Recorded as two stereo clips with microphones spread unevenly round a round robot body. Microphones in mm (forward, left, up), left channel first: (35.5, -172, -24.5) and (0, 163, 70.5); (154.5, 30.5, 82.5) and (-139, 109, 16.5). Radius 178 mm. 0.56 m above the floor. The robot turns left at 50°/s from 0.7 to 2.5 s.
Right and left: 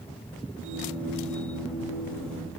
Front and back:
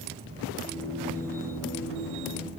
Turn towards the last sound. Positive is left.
No sound to turn to.